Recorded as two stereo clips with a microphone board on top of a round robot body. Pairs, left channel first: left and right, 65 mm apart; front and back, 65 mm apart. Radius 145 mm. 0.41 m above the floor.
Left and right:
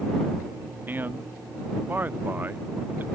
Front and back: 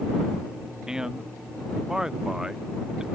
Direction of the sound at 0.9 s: 110° right.